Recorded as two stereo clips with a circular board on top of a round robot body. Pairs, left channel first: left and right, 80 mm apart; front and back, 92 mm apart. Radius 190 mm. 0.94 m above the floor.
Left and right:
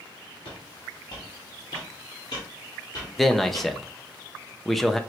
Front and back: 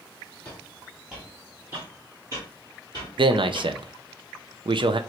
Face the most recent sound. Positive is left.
turn(degrees=180)